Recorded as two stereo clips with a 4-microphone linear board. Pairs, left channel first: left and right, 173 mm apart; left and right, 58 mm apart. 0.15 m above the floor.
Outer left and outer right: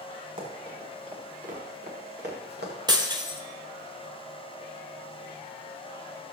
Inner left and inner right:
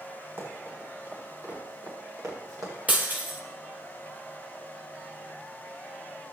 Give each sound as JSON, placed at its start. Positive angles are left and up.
{"t": 0.4, "sound": "running footsteps", "side_deg": -45, "distance_m": 7.0}
{"t": 2.9, "sound": "breaking glass", "side_deg": -25, "distance_m": 1.7}